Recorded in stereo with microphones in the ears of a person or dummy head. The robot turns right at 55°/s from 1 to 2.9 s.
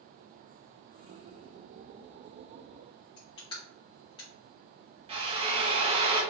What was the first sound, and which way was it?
Crushing, 20° left (ahead or behind).